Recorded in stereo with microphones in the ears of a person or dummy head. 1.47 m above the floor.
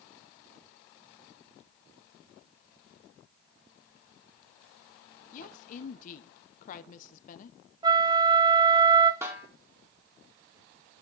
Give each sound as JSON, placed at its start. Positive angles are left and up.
{"t": 5.3, "sound": "a woman speaking", "side_deg": 45, "distance_m": 0.9}
{"t": 7.8, "sound": "a flute", "side_deg": -25, "distance_m": 0.5}
{"t": 9.2, "sound": "a snare drum", "side_deg": -15, "distance_m": 2.0}